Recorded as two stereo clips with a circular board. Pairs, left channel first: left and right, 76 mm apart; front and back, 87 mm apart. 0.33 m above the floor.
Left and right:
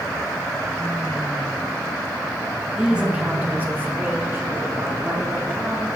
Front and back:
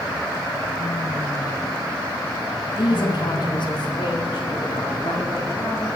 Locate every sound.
2.8 s a woman speaking: 10° right, 1.8 m; by 5.9 s 35° right, 5.5 m